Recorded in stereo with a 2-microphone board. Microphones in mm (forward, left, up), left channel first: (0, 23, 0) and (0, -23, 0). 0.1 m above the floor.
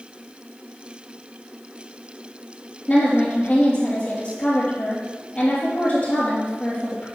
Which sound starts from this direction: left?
A woman speaking, at 2.9 s.